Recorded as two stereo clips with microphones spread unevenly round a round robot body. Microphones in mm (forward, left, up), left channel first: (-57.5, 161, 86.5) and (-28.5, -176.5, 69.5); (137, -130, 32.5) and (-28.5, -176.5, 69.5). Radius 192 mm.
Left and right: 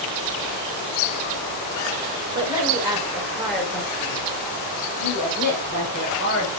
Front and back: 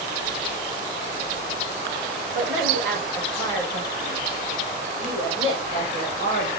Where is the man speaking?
160° right, 4.5 m; by 6.5 s 145° left, 4.5 m.